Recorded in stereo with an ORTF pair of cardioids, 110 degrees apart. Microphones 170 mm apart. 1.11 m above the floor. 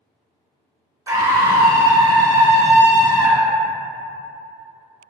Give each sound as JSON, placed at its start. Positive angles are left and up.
{"t": 1.1, "sound": "a scream", "azimuth_deg": -20, "distance_m": 1.0}